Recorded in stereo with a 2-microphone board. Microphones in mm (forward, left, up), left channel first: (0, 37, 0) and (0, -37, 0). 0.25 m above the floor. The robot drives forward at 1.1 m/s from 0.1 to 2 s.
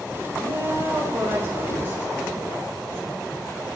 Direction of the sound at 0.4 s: 50° right (ahead or behind).